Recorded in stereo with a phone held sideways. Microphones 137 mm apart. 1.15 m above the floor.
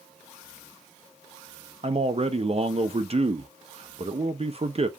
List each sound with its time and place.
1.8 s a man speaking: 50° right (ahead or behind), 0.6 m